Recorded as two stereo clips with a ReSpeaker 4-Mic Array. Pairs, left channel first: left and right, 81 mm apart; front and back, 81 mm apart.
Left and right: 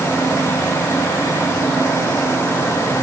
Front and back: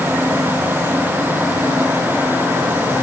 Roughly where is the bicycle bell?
No bicycle bell in this recording.